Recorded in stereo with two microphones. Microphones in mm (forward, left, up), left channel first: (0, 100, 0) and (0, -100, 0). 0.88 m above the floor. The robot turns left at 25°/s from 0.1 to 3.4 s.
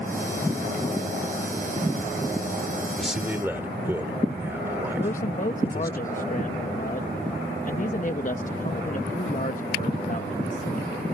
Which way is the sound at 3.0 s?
Centre (ahead or behind).